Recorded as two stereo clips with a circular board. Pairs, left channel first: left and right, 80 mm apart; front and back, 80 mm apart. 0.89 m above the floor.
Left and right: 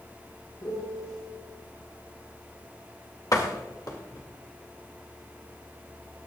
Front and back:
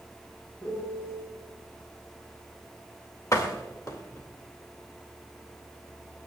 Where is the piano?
55° left, 6 m.